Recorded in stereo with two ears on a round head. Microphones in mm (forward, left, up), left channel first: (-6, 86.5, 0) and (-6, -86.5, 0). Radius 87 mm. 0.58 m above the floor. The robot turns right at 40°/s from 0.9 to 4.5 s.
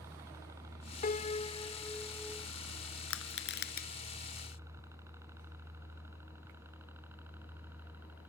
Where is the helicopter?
15° right (ahead or behind); by 8.3 s 10° right (ahead or behind).